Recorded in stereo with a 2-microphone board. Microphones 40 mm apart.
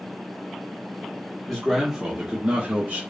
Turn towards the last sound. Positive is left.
turn(degrees=-50)  # may be behind; listen again after turning